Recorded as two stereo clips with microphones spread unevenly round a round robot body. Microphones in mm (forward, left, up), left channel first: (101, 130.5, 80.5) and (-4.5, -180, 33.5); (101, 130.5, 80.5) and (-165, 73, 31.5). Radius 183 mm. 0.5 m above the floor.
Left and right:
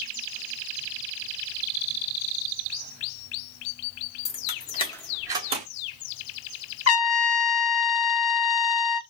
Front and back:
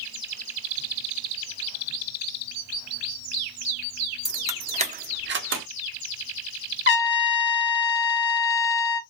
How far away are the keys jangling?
About 0.7 m.